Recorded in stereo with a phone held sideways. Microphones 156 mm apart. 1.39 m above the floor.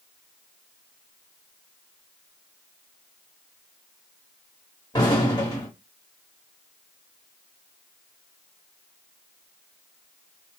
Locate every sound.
4.9 s an explosion: 30° left (ahead or behind), 1.6 m